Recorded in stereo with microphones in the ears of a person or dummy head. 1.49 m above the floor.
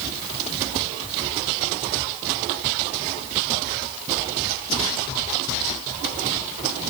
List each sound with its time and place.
Only background noise.